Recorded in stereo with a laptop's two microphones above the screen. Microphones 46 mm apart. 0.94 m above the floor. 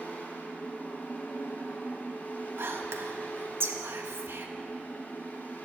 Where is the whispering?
60° right (ahead or behind), 1.4 m.